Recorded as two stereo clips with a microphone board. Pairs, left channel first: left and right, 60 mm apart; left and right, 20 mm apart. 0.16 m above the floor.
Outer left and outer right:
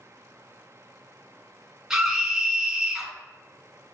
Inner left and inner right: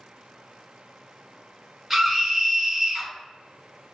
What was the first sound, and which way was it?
A scream, 10° right (ahead or behind).